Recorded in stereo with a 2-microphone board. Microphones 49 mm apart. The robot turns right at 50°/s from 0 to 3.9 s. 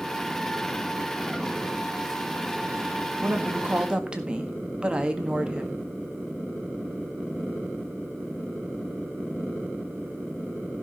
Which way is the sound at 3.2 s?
55° right.